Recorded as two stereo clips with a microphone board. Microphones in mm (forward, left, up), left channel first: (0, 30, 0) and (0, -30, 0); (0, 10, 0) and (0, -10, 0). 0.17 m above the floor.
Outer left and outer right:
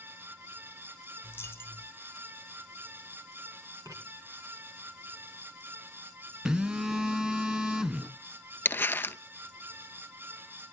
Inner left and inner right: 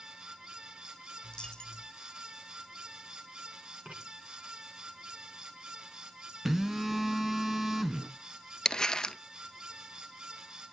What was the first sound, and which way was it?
A dropped coin, 40° left (ahead or behind).